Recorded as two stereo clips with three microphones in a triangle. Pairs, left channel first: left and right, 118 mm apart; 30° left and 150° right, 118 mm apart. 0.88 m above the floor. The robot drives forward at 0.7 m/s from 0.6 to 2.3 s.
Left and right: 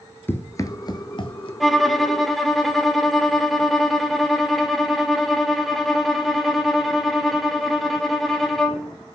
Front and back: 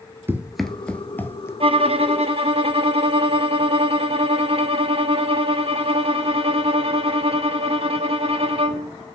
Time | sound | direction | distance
0.3 | running footsteps | 150° left | 1.0 m
1.6 | a violin | straight behind | 0.5 m